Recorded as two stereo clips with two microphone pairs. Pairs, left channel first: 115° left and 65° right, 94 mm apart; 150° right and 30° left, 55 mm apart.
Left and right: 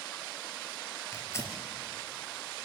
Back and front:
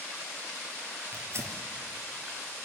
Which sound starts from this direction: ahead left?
Tearing paper, at 1.1 s.